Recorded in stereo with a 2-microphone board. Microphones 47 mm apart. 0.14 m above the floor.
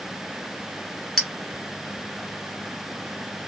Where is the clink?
5° left (ahead or behind), 1.0 m.